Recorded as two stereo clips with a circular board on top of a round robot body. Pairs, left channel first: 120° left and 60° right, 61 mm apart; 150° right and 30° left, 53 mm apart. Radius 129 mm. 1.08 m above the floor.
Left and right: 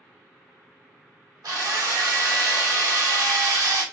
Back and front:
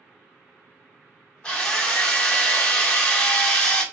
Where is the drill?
75° right, 1.1 m.